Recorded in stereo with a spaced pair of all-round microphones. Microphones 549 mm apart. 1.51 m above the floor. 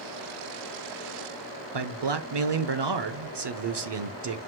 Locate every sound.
1.7 s a man speaking: 50° right (ahead or behind), 0.6 m